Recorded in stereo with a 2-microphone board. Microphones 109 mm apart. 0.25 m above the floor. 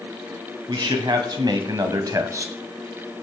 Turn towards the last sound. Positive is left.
turn(degrees=-25)  # may be behind; listen again after turning